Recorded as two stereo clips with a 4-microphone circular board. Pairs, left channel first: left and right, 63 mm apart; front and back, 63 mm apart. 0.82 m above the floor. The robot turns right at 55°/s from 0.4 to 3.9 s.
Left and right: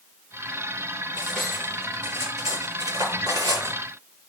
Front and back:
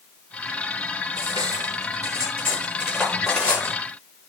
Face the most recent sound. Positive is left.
turn(degrees=-45)